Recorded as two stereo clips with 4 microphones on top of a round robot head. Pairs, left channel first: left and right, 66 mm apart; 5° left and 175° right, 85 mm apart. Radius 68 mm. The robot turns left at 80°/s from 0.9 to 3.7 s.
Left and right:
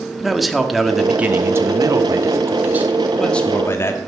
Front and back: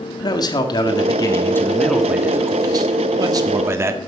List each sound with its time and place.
0.2 s a man speaking: straight ahead, 1.6 m; by 4.0 s 135° left, 1.6 m